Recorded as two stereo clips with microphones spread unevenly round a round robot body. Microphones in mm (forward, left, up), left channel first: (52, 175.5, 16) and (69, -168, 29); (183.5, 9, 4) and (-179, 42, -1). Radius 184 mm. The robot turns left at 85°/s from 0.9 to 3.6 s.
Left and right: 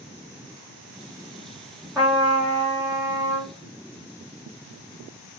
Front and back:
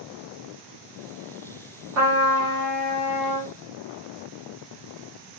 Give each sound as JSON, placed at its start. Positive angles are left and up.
{"t": 1.9, "sound": "a trumpet", "azimuth_deg": -170, "distance_m": 1.0}